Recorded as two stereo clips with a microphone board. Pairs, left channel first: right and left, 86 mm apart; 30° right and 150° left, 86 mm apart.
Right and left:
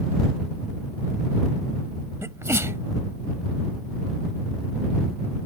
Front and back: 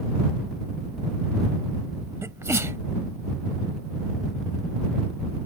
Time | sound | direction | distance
2.2 | a sneeze | 120° left | ?